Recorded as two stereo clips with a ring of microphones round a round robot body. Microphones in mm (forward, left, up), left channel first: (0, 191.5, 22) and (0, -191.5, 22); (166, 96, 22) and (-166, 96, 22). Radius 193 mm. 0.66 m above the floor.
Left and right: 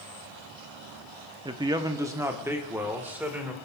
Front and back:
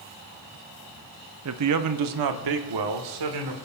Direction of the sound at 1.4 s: 165° right.